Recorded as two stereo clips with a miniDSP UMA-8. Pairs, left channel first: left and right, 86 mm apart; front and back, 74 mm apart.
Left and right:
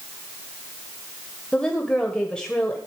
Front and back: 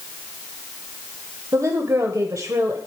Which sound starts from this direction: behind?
A woman speaking, at 1.5 s.